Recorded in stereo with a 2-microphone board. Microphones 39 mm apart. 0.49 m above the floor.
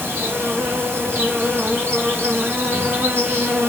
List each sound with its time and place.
0.0 s an insect: 65° right (ahead or behind), 5 m